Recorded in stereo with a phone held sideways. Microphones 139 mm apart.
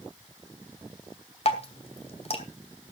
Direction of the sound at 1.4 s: 45° left (ahead or behind).